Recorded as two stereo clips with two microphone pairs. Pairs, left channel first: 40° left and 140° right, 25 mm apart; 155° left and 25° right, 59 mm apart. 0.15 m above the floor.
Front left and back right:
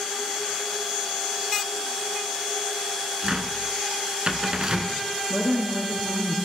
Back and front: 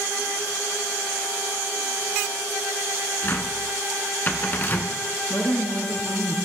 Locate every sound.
3.2 s a cupboard door: 170° right, 1.1 m
5.3 s a woman speaking: 170° left, 2 m